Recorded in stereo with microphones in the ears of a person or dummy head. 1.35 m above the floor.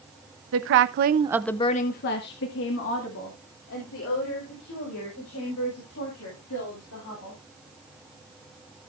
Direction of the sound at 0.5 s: 75° right (ahead or behind).